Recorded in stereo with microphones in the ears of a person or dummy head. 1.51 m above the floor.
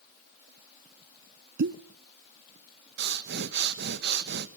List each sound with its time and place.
1.6 s a pop: 70° right (ahead or behind), 0.7 m
3.0 s breathing: 60° right (ahead or behind), 1.3 m